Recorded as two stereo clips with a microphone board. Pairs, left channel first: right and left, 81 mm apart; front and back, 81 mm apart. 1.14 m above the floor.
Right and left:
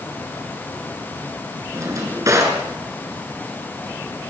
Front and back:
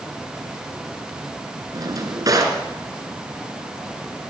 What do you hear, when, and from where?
1.7 s a drawer: 140° left, 4 m